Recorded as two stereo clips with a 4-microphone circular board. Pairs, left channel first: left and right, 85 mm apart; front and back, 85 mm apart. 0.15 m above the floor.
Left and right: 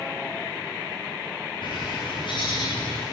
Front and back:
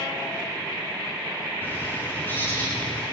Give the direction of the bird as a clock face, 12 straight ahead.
10 o'clock.